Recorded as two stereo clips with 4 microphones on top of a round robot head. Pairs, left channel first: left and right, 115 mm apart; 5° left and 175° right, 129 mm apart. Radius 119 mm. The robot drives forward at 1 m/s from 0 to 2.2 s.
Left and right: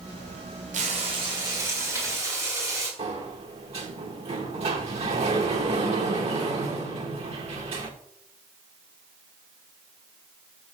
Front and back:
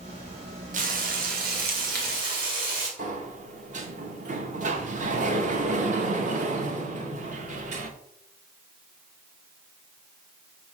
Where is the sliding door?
135° right, 0.8 m.